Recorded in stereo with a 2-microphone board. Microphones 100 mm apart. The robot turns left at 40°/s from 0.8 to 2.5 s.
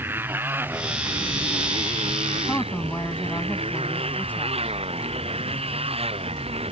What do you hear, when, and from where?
0.0 s a motorcycle: 25° right; by 6.7 s 90° right
2.5 s a woman speaking: 15° left (ahead or behind)